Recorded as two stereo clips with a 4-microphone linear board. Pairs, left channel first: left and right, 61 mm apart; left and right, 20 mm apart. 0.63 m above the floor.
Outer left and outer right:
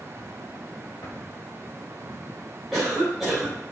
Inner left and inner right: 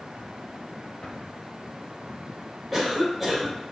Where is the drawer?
50° left (ahead or behind), 1.3 m.